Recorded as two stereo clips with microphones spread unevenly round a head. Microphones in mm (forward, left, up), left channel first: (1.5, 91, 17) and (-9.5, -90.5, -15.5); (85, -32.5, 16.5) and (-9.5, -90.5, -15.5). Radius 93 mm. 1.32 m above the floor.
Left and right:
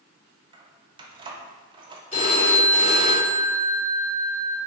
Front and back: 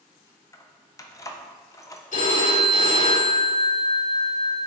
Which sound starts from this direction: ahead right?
Keys jangling, at 0.5 s.